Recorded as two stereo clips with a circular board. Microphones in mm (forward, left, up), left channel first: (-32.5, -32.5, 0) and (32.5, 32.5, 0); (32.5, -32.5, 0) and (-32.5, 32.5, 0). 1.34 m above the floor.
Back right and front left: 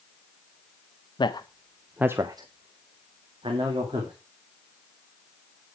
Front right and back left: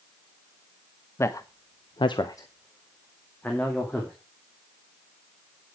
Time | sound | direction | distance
1.2 | a man speaking | 105° right | 1.0 m